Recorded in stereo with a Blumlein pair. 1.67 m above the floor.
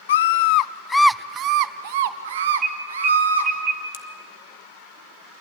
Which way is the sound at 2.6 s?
35° right.